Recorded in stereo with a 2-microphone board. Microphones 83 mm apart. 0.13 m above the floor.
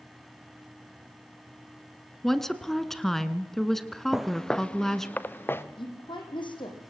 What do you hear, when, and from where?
2.2 s a woman speaking: 5° left (ahead or behind), 1.2 m
4.1 s footsteps: 5° right (ahead or behind), 0.7 m; by 5.6 s 25° left (ahead or behind), 1.5 m
5.8 s a woman speaking: 70° left (ahead or behind), 5.5 m